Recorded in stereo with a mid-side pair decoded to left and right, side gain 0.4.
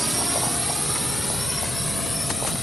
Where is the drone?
10° right; by 2.6 s 15° left.